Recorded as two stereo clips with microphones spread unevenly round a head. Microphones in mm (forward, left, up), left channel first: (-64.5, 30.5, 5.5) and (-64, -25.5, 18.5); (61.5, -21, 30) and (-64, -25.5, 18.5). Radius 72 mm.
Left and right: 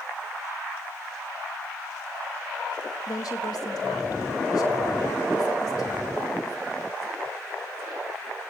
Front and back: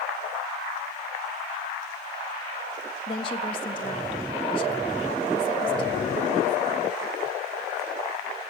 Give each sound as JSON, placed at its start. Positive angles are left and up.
{"t": 3.1, "sound": "a woman speaking", "azimuth_deg": 60, "distance_m": 1.8}